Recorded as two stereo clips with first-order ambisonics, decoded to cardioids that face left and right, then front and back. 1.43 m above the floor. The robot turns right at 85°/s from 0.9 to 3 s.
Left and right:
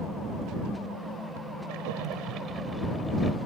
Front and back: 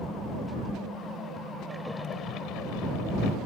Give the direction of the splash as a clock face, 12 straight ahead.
3 o'clock.